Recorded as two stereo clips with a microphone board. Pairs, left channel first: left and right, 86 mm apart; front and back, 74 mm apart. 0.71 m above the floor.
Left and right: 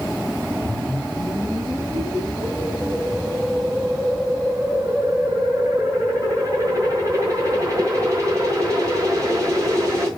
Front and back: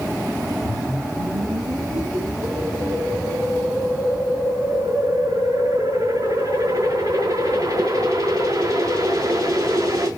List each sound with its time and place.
0.7 s a whoosh: 145° right, 5.5 m